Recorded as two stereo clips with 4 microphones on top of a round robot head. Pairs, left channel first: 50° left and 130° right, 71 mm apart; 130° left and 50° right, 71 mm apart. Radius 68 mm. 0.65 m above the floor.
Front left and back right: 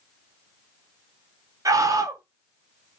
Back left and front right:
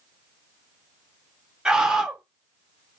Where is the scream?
130° right, 1.1 m.